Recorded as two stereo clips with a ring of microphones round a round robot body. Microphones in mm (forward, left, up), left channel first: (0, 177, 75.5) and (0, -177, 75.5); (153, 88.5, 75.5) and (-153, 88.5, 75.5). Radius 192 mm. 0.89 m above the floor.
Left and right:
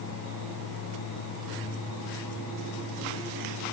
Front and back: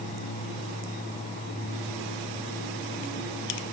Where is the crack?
No crack in this recording.